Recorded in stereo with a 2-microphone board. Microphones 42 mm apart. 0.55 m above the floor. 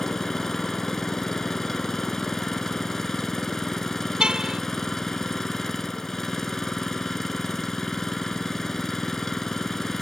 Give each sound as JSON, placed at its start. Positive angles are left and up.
{"t": 0.0, "sound": "an engine running", "side_deg": 10}
{"t": 4.2, "sound": "a car horn", "side_deg": -20}